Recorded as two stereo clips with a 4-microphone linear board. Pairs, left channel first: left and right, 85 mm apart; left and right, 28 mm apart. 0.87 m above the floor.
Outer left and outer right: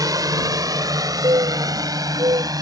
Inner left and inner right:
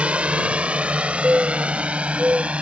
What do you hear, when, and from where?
0.0 s a drone: 45° right (ahead or behind)
1.2 s a bird: 60° right (ahead or behind)